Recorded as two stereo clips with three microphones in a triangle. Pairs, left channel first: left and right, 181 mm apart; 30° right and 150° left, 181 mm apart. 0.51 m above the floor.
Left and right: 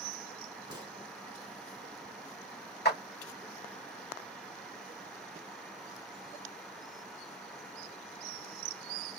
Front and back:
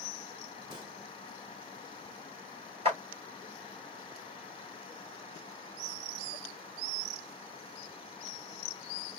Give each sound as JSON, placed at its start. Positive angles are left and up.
{"t": 0.7, "sound": "a gunshot", "azimuth_deg": -145, "distance_m": 1.4}
{"t": 2.9, "sound": "a clap", "azimuth_deg": 95, "distance_m": 3.0}